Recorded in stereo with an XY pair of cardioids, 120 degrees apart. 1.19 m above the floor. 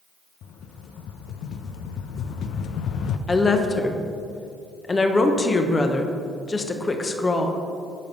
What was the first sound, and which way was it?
A rattle, 65° left.